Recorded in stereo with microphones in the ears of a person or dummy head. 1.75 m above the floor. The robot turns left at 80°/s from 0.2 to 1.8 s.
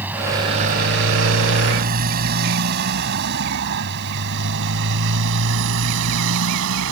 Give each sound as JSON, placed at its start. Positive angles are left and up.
{"t": 0.0, "sound": "a motorcycle", "side_deg": -10}